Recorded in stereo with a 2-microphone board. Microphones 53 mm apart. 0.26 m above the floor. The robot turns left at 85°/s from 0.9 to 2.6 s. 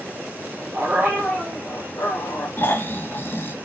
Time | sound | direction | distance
0.7 | a dog barking | 145° right | 5.5 m
2.6 | snoring | 40° left (ahead or behind) | 1.4 m